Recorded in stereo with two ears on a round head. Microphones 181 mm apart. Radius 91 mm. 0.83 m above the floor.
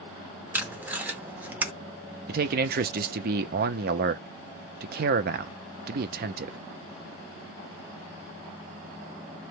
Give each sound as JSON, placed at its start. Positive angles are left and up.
{"t": 0.5, "sound": "tape being pulled", "side_deg": -10, "distance_m": 0.7}
{"t": 2.3, "sound": "a man speaking", "side_deg": -50, "distance_m": 0.6}